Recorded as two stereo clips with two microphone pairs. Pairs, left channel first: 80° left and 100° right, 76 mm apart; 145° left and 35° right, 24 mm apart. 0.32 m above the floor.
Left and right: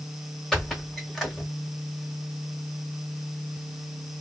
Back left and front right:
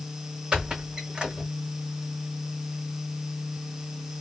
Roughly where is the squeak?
Ahead.